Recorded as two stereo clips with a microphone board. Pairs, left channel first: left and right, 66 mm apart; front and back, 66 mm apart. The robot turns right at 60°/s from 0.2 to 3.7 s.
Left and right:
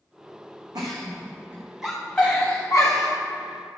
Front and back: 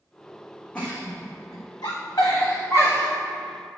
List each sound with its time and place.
0.8 s a giggle: 70° right, 2 m; by 3.1 s 70° left, 2 m